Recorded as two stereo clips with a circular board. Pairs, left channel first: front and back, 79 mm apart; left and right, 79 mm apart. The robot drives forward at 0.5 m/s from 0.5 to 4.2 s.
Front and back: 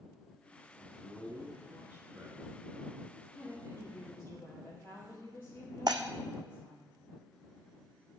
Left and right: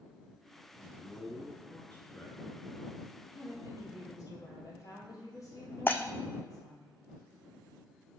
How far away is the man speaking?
About 1.8 m.